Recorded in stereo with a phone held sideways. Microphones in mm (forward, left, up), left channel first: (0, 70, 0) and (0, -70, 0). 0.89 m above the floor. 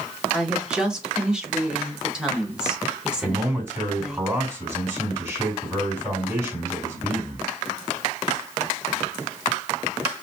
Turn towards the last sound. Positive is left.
turn(degrees=-20)  # may be behind; listen again after turning